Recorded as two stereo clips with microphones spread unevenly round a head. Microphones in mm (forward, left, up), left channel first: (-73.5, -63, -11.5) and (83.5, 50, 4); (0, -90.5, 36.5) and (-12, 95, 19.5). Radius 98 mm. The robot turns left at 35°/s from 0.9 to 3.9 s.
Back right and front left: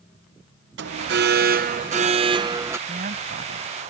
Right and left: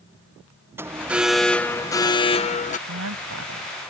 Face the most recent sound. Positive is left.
turn(degrees=55)